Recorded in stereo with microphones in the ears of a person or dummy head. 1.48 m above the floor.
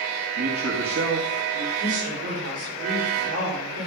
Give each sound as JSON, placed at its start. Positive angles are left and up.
{"t": 0.4, "sound": "a man speaking", "side_deg": -65, "distance_m": 1.9}
{"t": 1.8, "sound": "a woman speaking", "side_deg": -75, "distance_m": 5.5}